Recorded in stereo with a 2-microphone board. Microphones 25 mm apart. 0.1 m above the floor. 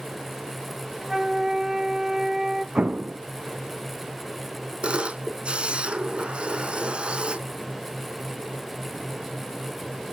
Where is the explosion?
60° right (ahead or behind), 0.5 m.